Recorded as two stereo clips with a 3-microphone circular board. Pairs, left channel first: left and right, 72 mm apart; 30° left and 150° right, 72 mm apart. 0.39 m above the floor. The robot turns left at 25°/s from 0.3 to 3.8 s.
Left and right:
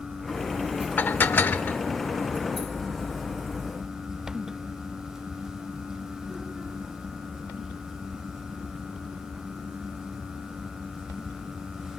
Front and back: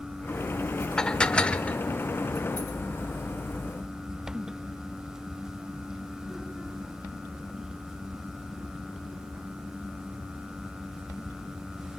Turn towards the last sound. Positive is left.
turn(degrees=25)